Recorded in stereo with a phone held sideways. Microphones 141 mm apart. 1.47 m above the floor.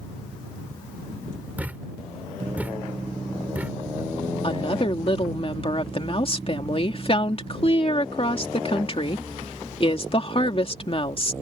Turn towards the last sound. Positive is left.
turn(degrees=40)  # may be behind; listen again after turning